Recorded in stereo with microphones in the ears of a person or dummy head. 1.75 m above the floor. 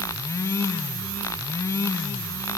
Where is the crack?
I don't hear a crack.